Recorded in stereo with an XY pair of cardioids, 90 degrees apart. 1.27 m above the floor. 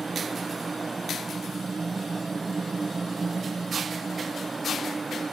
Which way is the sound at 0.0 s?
30° right.